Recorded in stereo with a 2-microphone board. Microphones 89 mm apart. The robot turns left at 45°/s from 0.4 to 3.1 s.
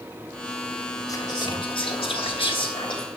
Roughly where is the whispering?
Behind left.